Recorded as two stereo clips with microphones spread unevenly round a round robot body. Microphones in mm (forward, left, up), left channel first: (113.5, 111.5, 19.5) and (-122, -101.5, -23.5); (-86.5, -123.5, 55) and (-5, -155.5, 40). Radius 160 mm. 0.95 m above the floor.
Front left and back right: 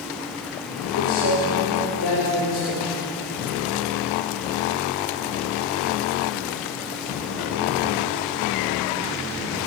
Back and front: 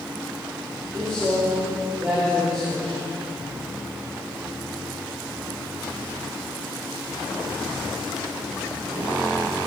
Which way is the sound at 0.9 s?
60° left.